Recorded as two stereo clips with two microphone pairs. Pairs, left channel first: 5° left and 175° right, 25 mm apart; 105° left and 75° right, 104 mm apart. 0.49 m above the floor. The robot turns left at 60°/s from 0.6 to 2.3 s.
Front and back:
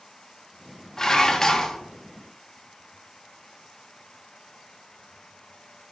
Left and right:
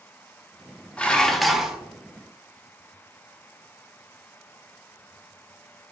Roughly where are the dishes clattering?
Ahead left.